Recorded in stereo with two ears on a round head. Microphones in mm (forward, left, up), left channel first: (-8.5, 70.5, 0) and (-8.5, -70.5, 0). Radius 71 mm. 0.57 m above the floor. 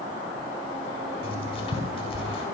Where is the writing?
40° left (ahead or behind), 6 m.